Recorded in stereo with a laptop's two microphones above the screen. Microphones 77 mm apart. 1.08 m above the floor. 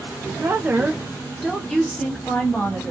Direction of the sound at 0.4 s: 40° right (ahead or behind).